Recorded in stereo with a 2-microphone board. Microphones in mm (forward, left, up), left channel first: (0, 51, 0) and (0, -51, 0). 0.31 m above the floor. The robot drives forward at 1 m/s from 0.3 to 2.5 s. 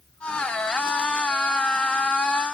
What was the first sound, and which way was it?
Only background noise.